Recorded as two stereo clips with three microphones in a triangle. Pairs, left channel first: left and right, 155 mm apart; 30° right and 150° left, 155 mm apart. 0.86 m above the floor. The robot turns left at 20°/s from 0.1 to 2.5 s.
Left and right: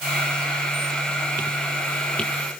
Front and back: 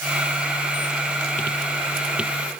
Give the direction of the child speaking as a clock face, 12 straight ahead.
I don't hear a child speaking.